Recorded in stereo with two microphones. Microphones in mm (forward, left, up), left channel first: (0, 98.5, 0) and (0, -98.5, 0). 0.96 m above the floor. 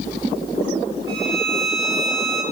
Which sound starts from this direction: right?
A violin, at 1.1 s.